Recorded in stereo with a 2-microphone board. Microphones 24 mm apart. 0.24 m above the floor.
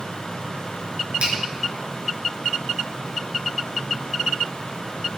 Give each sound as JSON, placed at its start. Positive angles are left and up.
{"t": 1.2, "sound": "a finger snap", "side_deg": -55, "distance_m": 3.0}